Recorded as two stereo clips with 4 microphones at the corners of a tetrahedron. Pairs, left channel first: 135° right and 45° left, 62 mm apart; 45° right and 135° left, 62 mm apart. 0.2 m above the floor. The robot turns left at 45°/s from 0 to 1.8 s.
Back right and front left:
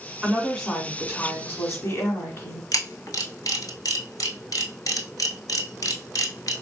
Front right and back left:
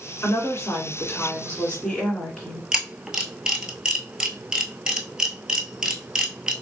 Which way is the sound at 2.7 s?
150° right.